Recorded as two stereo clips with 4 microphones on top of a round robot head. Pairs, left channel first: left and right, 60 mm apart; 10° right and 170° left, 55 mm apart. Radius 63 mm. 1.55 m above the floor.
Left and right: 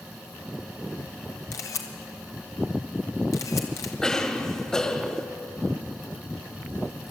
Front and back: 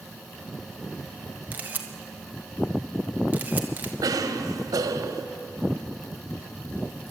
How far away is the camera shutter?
About 1.6 m.